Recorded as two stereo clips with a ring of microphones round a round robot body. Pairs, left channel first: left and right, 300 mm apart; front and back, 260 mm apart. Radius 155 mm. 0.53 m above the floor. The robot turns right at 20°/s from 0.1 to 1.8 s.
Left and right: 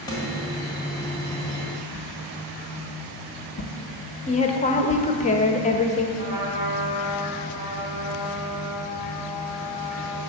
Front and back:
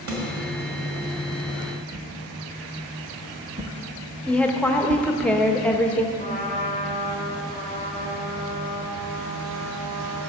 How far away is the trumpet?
About 2.0 m.